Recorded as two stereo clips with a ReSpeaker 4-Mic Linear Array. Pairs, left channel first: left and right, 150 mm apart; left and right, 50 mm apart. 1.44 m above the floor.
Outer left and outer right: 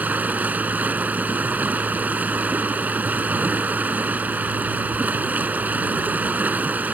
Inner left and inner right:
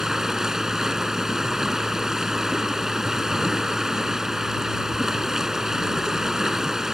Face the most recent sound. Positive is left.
turn(degrees=-10)  # may be behind; listen again after turning